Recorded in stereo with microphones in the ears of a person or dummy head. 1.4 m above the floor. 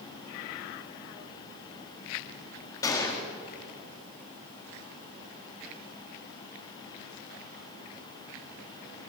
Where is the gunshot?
20° left (ahead or behind), 1.4 m.